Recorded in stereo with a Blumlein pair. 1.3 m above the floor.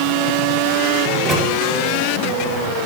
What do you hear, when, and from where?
1.1 s a microwave: 5° right, 3 m